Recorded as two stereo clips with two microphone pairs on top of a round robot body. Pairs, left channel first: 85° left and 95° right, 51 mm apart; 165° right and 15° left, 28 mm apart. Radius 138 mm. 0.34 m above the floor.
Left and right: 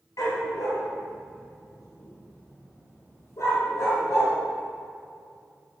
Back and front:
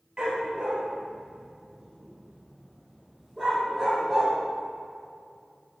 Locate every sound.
0.2 s a dog barking: 75° left, 4 m; by 4.3 s 100° left, 7 m